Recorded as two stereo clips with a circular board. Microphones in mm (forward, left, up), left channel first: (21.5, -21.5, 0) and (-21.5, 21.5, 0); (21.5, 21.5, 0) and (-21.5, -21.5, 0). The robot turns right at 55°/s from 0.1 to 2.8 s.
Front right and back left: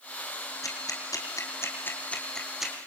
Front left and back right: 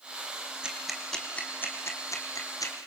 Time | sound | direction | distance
0.6 | ticking | 60° right | 2.5 m